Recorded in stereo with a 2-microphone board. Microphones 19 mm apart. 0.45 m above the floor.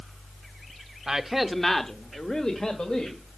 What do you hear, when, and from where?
1.1 s a man speaking: 25° right (ahead or behind), 1.0 m; by 3.2 s 65° left (ahead or behind), 2.5 m